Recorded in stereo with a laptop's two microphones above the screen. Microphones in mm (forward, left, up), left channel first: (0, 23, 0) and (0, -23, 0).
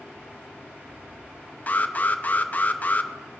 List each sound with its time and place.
1.7 s an alarm: 35° left (ahead or behind), 0.6 m